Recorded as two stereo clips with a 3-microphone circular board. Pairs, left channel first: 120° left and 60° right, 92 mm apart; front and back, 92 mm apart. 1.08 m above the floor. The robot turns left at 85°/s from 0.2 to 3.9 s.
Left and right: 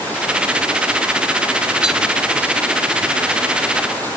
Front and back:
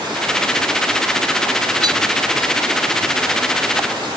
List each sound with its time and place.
1.8 s tapping: 140° right; by 1.9 s 150° right